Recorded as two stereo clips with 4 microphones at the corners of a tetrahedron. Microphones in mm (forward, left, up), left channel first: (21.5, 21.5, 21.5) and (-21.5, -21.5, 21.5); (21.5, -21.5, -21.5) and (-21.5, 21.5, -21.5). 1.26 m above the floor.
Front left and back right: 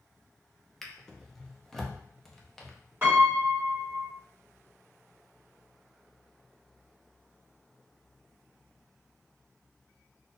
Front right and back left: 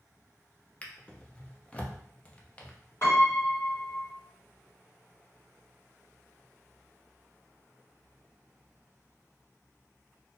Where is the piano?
85° right, 1.9 m.